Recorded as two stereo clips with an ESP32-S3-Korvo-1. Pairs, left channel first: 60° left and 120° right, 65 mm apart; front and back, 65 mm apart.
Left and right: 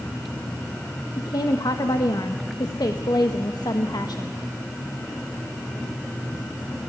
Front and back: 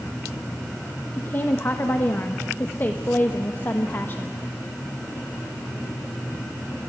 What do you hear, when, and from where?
1.2 s a woman speaking: 60° left, 1.2 m